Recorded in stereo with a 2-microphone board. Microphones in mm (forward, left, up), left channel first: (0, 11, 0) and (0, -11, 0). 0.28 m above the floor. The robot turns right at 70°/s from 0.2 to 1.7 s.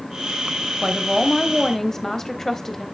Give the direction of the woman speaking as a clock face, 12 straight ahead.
1 o'clock.